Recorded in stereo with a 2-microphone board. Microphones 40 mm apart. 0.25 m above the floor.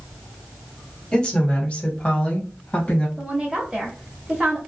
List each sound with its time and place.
1.1 s a woman speaking: 25° left (ahead or behind), 1.0 m; by 3.1 s 40° left (ahead or behind), 1.5 m
3.2 s a woman speaking: 20° right (ahead or behind), 0.9 m